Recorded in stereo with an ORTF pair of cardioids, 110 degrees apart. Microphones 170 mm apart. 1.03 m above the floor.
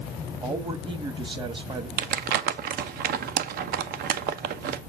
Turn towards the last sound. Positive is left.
turn(degrees=-65)